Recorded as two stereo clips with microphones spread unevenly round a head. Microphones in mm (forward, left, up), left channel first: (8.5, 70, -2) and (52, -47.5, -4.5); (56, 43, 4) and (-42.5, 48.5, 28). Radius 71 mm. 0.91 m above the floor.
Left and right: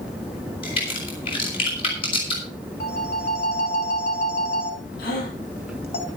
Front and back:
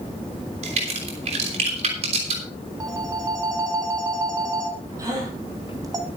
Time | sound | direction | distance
0.6 | a crack | 165° left | 5.5 m
2.8 | a phone ringing | 130° left | 3.5 m
5.0 | a gasp | 125° left | 7.5 m